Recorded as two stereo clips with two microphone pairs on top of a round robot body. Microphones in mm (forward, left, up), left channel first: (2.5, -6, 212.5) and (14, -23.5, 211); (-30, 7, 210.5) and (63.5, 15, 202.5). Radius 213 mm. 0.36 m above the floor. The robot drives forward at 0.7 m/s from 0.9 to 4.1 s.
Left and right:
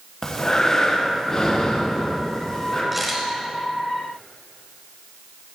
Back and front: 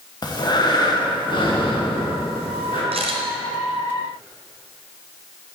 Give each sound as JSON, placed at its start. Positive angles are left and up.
{"t": 0.2, "sound": "breathing", "azimuth_deg": 180, "distance_m": 1.5}
{"t": 2.9, "sound": "a camera shutter", "azimuth_deg": 25, "distance_m": 1.0}